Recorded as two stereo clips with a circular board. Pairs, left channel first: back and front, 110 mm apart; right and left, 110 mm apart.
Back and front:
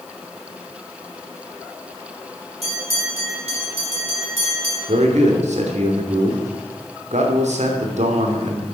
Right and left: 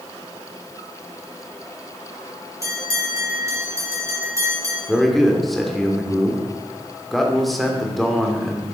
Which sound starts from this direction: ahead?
A man speaking, at 4.9 s.